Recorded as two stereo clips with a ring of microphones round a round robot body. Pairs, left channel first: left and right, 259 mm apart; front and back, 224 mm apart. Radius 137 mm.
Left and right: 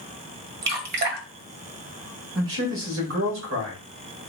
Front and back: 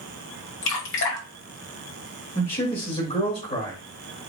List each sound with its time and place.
0.6 s dripping: 40° right, 1.1 m
2.4 s a man speaking: 65° right, 2 m